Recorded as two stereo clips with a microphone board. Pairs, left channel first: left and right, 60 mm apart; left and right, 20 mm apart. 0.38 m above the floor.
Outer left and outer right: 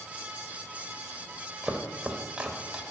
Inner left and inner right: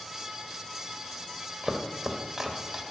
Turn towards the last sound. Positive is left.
turn(degrees=-15)  # may be behind; listen again after turning